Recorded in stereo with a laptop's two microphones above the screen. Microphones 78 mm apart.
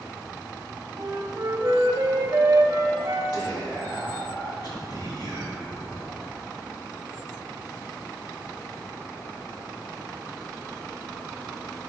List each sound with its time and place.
1.0 s a flute: 45° right (ahead or behind), 0.7 m
3.3 s whispering: 60° left (ahead or behind), 2 m